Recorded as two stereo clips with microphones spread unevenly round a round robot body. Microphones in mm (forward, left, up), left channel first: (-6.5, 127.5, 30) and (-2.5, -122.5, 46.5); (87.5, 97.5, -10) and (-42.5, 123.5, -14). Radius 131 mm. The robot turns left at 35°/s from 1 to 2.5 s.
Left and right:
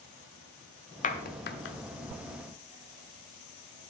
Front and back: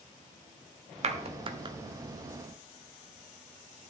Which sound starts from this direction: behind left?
A clap, at 1.0 s.